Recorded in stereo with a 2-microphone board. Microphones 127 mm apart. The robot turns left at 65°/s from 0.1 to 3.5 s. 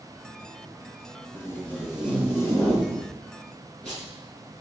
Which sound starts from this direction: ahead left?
Tape being pulled, at 1.3 s.